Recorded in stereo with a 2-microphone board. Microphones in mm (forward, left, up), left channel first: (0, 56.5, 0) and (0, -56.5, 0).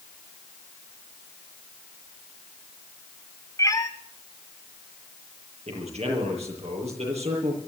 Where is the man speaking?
70° right (ahead or behind), 7.5 m.